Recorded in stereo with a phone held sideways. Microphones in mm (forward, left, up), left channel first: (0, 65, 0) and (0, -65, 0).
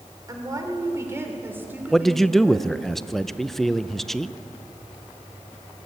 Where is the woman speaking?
30° right (ahead or behind), 3.5 m; by 2.7 s 5° right (ahead or behind), 4 m.